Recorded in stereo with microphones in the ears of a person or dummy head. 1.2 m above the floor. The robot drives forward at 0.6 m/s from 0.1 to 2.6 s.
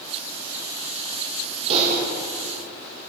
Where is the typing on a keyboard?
30° right (ahead or behind), 0.6 m; by 2.0 s 40° right (ahead or behind), 0.5 m.